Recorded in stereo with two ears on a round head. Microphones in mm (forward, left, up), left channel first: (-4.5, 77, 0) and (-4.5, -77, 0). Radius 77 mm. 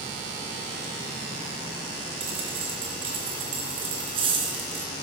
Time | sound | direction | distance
2.2 | a dropped coin | 30° right (ahead or behind) | 2.5 m